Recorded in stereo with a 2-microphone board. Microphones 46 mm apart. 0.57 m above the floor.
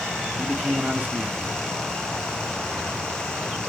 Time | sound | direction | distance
0.4 | a man speaking | 35° right (ahead or behind) | 1.4 m